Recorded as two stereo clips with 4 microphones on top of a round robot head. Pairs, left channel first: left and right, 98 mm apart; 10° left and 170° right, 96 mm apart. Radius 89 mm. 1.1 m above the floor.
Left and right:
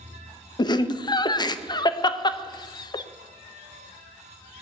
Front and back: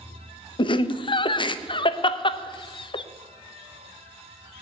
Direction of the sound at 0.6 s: 45° left.